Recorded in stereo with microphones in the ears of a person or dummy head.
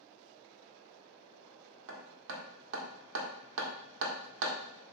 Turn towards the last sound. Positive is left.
turn(degrees=-70)  # may be behind; listen again after turning